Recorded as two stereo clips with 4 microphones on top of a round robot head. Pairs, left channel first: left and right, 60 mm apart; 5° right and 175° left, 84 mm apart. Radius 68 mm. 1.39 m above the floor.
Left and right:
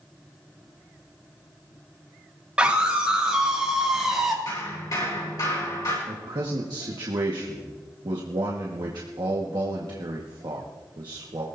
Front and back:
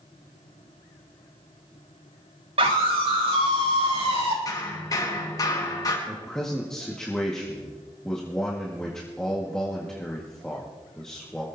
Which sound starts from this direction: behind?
A scream, at 2.6 s.